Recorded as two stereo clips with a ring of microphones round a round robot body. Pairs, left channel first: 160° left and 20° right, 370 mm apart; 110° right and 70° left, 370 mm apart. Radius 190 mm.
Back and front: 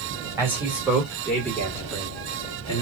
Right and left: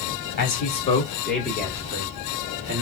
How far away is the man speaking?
About 1.4 m.